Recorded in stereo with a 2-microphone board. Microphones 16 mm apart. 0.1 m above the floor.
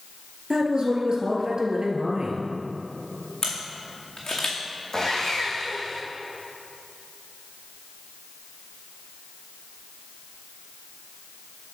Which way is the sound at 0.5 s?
50° right (ahead or behind).